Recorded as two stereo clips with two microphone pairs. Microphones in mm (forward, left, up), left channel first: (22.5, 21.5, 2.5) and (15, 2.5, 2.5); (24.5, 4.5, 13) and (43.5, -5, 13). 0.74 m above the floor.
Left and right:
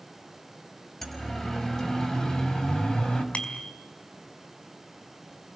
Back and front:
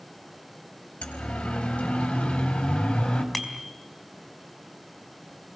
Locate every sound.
1.0 s a siren: 145° left, 4.5 m; by 3.2 s 120° left, 5 m
3.3 s a bicycle bell: 65° left, 4 m